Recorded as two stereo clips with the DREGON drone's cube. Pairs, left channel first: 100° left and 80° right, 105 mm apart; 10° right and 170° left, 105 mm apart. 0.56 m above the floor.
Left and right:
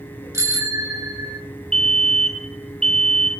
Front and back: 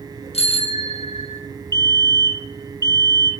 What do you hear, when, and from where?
0.3 s a bicycle bell: 20° right, 4.5 m; by 1.4 s 30° right, 3.5 m
1.7 s a fire alarm: 25° left, 1.8 m